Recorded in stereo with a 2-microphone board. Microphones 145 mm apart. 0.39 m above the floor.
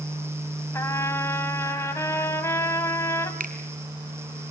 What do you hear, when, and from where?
0.7 s a trumpet: 20° left (ahead or behind), 2 m
3.4 s a finger snap: 80° right, 2.5 m